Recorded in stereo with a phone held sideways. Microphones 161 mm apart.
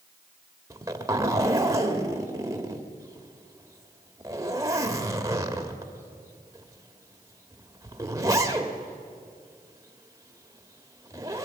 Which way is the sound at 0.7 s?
20° right (ahead or behind).